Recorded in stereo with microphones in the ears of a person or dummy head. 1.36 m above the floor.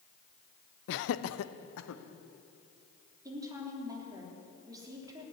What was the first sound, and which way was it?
Laughter, 60° left (ahead or behind).